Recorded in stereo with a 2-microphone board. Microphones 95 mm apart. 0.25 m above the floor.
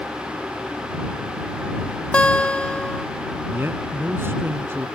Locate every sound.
2.1 s a guitar: 15° left (ahead or behind)
3.5 s a man speaking: 25° right (ahead or behind)